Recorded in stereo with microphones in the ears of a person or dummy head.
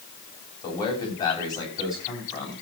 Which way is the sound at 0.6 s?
30° left (ahead or behind).